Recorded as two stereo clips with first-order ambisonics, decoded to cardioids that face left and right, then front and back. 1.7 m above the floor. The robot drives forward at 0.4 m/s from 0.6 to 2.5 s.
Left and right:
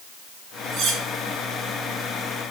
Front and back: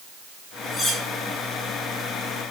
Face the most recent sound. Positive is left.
turn(degrees=-90)